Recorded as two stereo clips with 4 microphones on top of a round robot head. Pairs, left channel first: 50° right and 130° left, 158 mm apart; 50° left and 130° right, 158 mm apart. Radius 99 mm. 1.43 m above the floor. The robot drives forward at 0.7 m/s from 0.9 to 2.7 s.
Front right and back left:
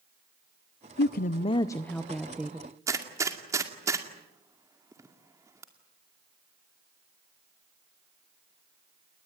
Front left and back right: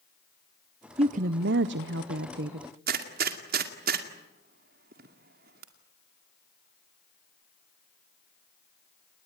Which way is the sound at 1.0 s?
75° right.